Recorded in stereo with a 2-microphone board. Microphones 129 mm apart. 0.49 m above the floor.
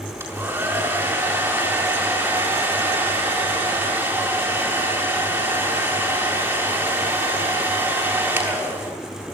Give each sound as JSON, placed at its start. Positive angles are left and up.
{"t": 0.2, "sound": "a hair dryer", "side_deg": -20, "distance_m": 7.0}